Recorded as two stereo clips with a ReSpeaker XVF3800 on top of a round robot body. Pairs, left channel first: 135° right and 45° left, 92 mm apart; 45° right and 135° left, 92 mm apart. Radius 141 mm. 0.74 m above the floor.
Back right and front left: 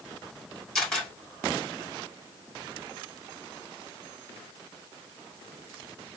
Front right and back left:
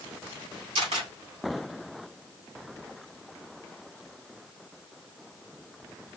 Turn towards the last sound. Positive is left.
turn(degrees=145)